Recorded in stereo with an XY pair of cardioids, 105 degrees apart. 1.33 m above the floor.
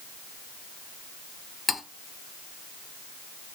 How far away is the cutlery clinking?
About 2 m.